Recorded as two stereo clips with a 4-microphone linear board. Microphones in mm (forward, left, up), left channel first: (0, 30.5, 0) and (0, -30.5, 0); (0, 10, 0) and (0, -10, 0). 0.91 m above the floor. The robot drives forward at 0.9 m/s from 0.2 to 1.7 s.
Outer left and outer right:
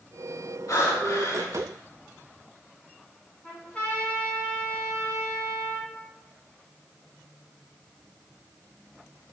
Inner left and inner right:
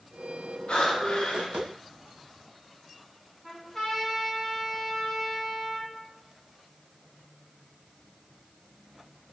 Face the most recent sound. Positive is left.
turn(degrees=20)  # may be behind; listen again after turning